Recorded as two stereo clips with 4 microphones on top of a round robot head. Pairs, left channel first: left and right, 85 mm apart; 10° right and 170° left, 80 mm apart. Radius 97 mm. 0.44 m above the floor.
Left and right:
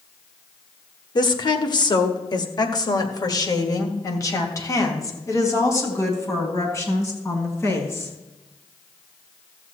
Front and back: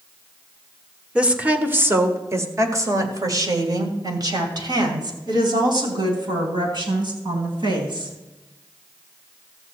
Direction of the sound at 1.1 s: 95° left.